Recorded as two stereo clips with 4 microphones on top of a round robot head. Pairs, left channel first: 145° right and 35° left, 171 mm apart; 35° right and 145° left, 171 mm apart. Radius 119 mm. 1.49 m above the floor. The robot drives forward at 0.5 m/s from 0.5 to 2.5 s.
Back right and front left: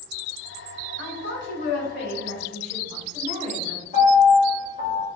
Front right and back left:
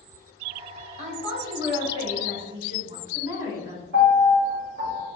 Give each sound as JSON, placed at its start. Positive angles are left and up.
{"t": 1.0, "sound": "a woman speaking", "azimuth_deg": -165, "distance_m": 1.2}
{"t": 3.9, "sound": "a piano", "azimuth_deg": 170, "distance_m": 1.9}